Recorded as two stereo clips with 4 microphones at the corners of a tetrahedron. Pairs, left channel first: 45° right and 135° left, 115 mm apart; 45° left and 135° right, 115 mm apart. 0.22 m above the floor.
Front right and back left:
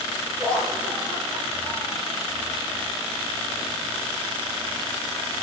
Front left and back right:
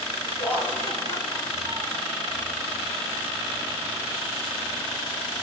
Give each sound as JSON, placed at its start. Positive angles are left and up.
{"t": 0.4, "sound": "laughter", "azimuth_deg": 70, "distance_m": 4.5}